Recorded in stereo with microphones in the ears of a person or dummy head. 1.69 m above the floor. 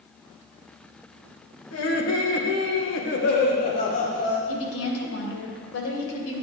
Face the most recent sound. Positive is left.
turn(degrees=80)